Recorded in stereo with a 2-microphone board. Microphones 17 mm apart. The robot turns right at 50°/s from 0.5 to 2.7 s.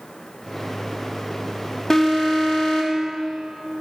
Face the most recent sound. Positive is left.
turn(degrees=70)